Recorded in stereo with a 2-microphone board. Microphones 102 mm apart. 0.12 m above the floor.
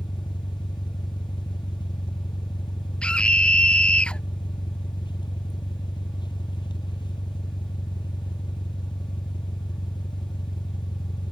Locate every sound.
0.0 s an engine running: 50° left (ahead or behind)
3.0 s a scream: 10° left (ahead or behind)